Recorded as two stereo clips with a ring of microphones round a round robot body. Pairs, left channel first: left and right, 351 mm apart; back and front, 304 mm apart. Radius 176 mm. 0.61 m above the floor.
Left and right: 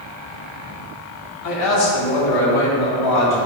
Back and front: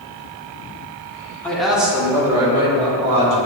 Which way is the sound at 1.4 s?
95° left.